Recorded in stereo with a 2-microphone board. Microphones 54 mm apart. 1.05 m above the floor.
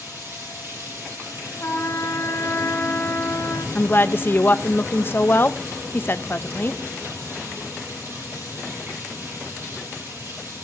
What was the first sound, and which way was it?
Running water, 50° right (ahead or behind).